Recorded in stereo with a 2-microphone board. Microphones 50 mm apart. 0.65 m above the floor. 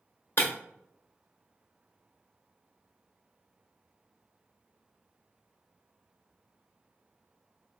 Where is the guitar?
No guitar in this recording.